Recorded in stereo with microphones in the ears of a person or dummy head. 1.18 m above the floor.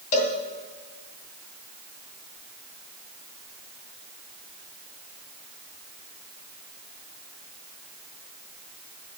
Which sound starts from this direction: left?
A cowbell, at 0.1 s.